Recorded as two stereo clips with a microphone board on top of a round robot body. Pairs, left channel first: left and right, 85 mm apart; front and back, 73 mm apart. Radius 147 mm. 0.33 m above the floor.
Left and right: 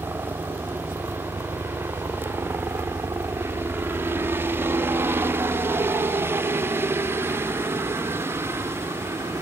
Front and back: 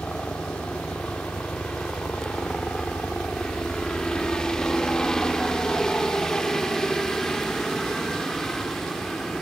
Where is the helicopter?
60° right; by 9.4 s 80° right.